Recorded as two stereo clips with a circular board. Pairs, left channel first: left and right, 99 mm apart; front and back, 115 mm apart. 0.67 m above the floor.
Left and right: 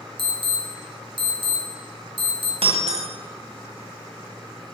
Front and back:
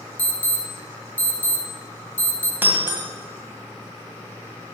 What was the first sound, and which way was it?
An alarm, 75° right.